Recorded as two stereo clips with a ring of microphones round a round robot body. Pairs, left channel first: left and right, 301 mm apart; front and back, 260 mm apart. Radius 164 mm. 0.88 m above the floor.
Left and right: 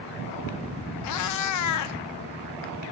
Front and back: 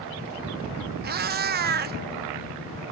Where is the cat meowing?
125° left, 0.6 m.